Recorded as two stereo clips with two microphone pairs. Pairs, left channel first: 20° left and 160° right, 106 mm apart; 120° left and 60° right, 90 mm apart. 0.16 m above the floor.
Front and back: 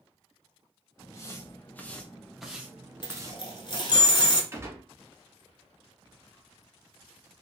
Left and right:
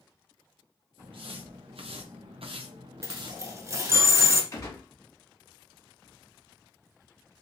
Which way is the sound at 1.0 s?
40° right.